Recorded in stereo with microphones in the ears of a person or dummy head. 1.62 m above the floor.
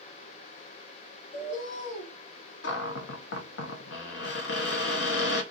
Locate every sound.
1.3 s a bird: 65° left (ahead or behind), 1.2 m
2.6 s a cupboard door: 75° left (ahead or behind), 0.8 m